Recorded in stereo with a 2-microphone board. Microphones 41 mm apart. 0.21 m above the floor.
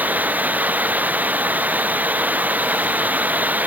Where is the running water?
40° right (ahead or behind).